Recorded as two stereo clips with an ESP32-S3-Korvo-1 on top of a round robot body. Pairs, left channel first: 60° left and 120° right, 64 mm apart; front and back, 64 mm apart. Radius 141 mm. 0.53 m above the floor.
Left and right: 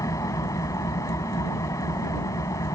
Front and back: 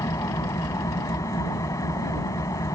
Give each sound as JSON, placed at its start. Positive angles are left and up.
{"t": 0.0, "sound": "an engine running", "azimuth_deg": 30}